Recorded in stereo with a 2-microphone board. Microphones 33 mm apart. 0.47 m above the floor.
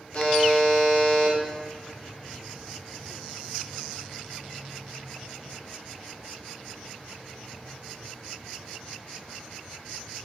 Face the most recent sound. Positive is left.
turn(degrees=45)  # may be behind; listen again after turning